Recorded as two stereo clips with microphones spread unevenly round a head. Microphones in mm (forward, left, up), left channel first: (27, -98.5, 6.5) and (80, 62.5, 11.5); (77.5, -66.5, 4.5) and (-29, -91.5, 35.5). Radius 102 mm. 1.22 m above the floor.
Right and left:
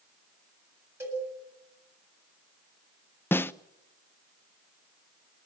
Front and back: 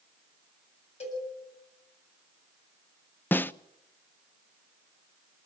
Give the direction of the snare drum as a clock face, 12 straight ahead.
1 o'clock.